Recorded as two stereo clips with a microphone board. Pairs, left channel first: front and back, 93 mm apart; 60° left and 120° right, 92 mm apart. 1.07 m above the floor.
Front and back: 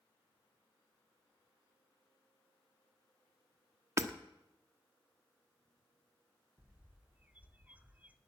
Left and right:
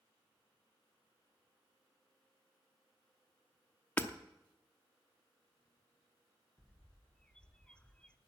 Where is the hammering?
125° left, 0.9 m.